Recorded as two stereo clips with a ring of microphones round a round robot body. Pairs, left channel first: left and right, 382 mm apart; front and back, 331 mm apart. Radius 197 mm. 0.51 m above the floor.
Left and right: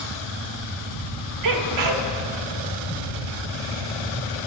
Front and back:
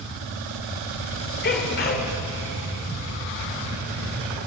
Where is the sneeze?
60° right, 1.7 m.